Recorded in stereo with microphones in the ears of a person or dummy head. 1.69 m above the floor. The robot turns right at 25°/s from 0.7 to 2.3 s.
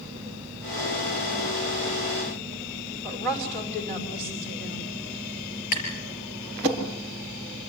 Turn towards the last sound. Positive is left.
turn(degrees=50)  # may be behind; listen again after turning